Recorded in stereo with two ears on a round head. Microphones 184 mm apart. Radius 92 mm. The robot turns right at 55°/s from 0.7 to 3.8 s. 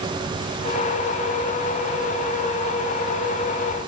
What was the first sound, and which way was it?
Only background noise.